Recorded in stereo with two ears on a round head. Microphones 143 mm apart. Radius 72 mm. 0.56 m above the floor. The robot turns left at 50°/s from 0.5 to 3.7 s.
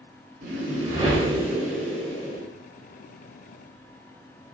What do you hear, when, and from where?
0.4 s a whoosh: 110° right, 1.4 m; by 2.4 s 150° left, 1.4 m